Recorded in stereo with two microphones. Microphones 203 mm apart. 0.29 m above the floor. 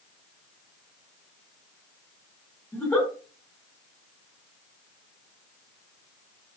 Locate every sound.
2.7 s a giggle: 10° left (ahead or behind), 1.2 m